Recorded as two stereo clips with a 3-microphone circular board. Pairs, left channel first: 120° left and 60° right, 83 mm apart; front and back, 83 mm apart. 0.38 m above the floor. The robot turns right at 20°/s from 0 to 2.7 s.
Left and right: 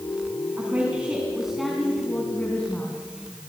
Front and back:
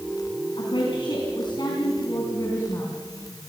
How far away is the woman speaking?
About 4 m.